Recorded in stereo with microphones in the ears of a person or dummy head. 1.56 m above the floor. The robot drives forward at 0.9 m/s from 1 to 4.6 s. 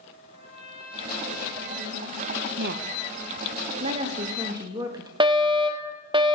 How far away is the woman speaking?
About 1.0 m.